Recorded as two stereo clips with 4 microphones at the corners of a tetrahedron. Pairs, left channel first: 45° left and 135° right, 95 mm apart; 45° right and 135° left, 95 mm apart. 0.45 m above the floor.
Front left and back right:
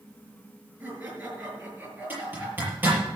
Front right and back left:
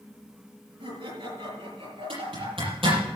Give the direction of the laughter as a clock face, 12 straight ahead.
7 o'clock.